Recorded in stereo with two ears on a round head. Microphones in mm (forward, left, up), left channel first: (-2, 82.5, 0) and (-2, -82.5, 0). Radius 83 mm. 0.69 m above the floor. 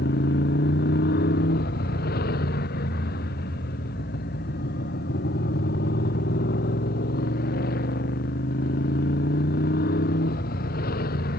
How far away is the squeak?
I don't hear a squeak.